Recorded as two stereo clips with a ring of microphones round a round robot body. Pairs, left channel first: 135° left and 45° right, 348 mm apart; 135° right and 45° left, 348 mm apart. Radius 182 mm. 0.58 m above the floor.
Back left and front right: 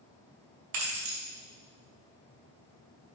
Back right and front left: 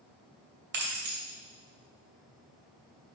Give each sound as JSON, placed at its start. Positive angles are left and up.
{"t": 0.7, "sound": "keys jangling", "azimuth_deg": -15, "distance_m": 2.0}